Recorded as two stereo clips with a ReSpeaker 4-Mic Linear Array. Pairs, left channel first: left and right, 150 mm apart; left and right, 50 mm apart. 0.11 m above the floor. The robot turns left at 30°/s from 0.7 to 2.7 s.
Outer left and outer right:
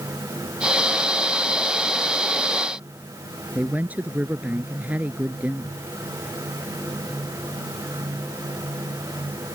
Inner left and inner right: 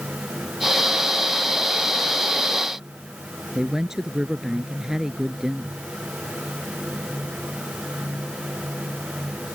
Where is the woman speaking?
10° right (ahead or behind).